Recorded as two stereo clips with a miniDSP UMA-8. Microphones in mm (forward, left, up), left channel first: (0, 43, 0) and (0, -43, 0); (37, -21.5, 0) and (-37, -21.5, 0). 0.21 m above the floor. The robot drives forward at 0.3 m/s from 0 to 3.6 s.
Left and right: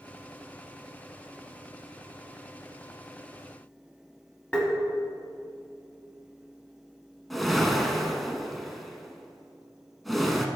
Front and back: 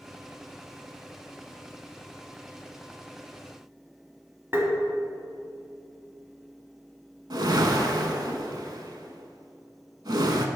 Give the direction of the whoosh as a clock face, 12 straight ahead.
6 o'clock.